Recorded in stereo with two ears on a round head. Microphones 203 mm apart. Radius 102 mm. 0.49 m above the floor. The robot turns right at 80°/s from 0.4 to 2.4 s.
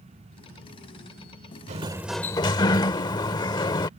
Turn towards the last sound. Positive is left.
turn(degrees=20)